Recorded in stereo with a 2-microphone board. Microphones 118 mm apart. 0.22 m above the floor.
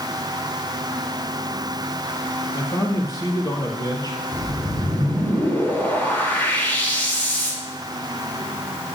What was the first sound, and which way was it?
A man speaking, 35° left (ahead or behind).